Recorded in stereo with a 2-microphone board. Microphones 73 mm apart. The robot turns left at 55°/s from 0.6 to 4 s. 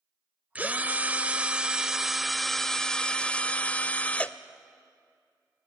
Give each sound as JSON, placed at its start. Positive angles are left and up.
{"t": 0.6, "sound": "a drill", "side_deg": -20, "distance_m": 0.6}